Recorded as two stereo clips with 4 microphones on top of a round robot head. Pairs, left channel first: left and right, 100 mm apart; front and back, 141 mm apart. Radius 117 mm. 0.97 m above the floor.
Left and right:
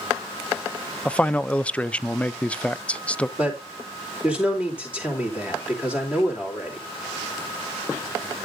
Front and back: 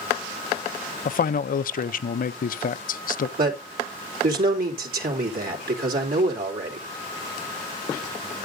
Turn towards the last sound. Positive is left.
turn(degrees=-170)